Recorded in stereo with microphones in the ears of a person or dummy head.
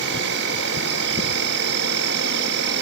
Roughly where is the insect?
Right.